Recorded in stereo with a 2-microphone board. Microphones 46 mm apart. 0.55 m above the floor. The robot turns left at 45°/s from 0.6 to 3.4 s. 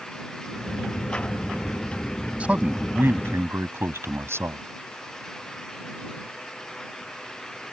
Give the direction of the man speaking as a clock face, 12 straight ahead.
1 o'clock.